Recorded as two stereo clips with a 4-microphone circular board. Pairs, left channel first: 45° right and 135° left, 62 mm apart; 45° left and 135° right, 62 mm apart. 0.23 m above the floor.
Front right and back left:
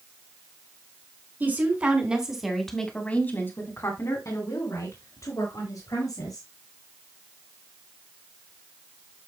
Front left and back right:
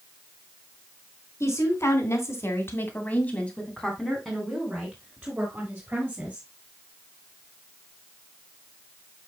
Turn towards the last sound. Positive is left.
turn(degrees=-65)